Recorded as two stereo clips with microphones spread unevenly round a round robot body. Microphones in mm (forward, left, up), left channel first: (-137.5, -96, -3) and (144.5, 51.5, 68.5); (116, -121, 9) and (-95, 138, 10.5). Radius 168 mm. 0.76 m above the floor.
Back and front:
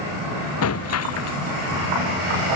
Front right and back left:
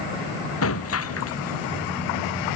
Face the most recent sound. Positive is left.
turn(degrees=-105)